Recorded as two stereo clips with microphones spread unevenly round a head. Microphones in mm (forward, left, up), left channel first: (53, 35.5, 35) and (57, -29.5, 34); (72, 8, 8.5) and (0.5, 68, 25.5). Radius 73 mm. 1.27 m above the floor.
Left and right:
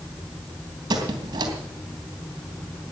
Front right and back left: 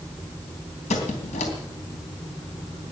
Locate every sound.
0.9 s a squeak: 80° right, 3 m